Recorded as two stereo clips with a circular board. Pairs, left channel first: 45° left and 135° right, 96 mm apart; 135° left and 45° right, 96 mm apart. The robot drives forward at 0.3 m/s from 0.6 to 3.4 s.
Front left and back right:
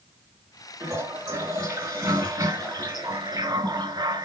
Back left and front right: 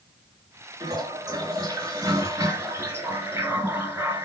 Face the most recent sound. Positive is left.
turn(degrees=-110)